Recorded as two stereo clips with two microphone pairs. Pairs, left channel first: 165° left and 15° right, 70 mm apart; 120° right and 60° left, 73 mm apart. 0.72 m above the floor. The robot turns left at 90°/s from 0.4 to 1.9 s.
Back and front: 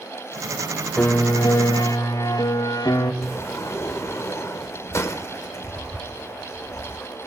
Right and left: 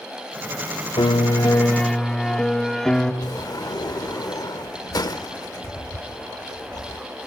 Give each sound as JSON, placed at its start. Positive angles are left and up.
{"t": 1.0, "sound": "a piano", "azimuth_deg": -125, "distance_m": 0.8}
{"t": 3.2, "sound": "a sliding door", "azimuth_deg": -145, "distance_m": 0.8}